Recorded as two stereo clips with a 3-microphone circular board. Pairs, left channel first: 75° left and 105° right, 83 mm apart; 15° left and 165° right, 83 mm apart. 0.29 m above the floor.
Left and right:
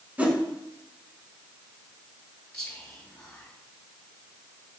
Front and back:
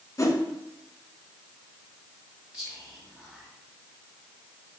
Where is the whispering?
135° left, 1.5 m.